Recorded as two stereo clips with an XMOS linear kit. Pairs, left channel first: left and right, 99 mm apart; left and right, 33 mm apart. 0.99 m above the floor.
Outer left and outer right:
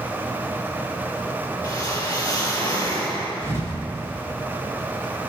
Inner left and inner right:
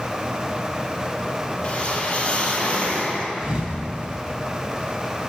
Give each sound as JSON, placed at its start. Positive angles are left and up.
{"t": 1.6, "sound": "a whoosh", "side_deg": 35, "distance_m": 3.5}
{"t": 3.4, "sound": "a thud", "side_deg": -25, "distance_m": 2.0}